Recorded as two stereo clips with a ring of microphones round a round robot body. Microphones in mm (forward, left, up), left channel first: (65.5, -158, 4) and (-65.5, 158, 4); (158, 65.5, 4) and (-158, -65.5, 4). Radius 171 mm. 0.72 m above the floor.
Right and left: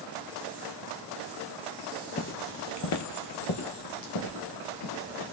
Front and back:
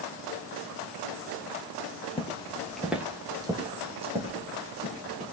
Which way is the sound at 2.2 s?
30° right.